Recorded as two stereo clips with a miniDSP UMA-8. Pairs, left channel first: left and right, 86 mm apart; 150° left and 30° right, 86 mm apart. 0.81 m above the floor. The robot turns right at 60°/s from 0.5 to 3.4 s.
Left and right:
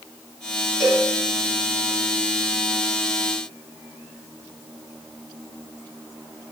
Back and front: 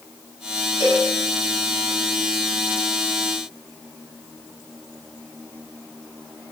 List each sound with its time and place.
0.8 s a cowbell: 5° left, 1.6 m; by 1.1 s 25° left, 1.6 m